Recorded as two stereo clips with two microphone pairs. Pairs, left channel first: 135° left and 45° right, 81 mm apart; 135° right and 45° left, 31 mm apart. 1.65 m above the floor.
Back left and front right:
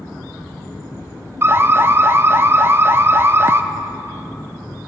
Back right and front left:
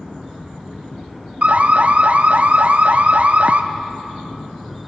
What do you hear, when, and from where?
1.4 s an alarm: 10° left, 0.5 m